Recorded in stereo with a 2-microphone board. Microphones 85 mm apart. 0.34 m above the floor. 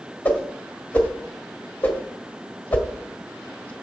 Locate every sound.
0.2 s a whoosh: 20° left (ahead or behind), 1.5 m